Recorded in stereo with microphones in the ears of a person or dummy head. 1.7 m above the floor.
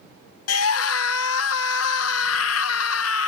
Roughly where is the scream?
Left.